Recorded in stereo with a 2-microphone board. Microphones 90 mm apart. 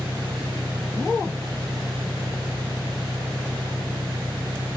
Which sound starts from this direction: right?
An engine running, at 0.0 s.